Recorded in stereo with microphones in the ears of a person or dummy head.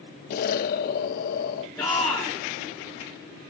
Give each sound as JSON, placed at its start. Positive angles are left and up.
{"t": 0.3, "sound": "an explosion", "side_deg": 50, "distance_m": 0.8}
{"t": 1.8, "sound": "a shout", "side_deg": 20, "distance_m": 5.0}